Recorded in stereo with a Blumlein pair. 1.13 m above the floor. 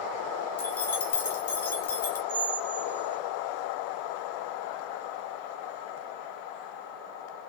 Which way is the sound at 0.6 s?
65° left.